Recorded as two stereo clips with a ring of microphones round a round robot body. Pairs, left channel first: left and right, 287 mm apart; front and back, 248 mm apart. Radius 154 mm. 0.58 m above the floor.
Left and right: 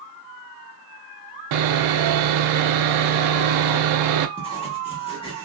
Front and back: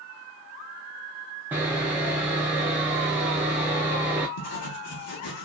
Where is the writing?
20° left, 1.0 m.